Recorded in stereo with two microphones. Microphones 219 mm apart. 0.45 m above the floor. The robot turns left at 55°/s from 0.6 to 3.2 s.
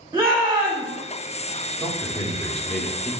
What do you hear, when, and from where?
0.1 s a shout: 20° right (ahead or behind), 0.9 m; by 0.9 s 25° right (ahead or behind), 0.9 m
1.8 s a man speaking: 15° left (ahead or behind), 0.7 m; by 3.1 s 5° right (ahead or behind), 0.7 m